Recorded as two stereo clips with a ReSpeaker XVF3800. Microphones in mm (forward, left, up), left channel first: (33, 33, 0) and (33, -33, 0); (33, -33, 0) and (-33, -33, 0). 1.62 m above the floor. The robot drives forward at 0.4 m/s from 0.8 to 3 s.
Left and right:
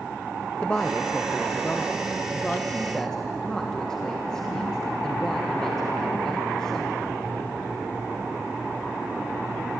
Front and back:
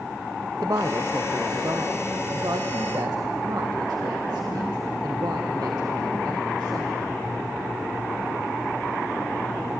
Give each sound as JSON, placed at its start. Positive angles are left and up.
{"t": 0.6, "sound": "a woman speaking", "azimuth_deg": 160, "distance_m": 0.8}